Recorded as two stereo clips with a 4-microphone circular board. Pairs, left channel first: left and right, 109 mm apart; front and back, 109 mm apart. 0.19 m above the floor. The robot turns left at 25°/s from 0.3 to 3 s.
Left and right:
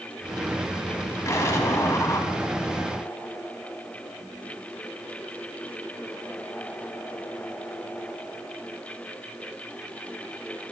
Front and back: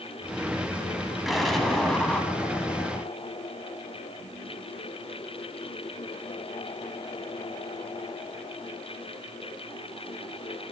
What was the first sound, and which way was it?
An explosion, 95° left.